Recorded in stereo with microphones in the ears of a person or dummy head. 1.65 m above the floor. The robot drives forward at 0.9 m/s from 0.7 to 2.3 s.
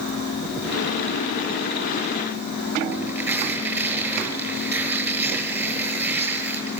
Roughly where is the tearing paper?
Centre.